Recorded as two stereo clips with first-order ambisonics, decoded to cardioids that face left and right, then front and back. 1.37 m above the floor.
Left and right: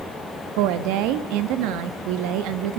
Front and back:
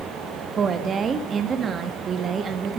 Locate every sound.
0.6 s a woman speaking: 110° right, 1.8 m